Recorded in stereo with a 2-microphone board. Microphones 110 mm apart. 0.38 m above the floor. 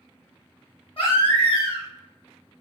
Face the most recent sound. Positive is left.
turn(degrees=55)  # may be behind; listen again after turning